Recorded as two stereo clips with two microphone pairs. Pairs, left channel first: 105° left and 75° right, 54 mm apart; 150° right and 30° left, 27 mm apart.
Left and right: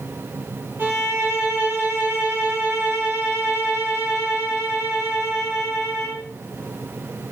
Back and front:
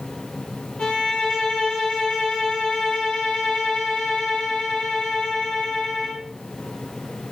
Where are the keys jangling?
No keys jangling in this recording.